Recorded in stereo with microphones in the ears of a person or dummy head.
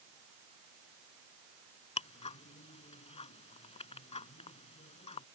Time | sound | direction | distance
2.0 | ticking | 45° left (ahead or behind) | ?